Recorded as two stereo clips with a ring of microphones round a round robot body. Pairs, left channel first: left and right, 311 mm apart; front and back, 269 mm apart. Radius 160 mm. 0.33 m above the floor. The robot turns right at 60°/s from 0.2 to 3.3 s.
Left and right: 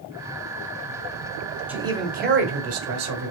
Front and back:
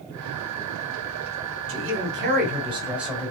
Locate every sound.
1.7 s a man speaking: 175° right, 1.2 m; by 3.3 s 80° right, 1.2 m